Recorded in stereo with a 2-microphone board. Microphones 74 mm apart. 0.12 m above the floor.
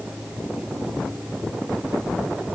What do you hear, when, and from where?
Only background noise.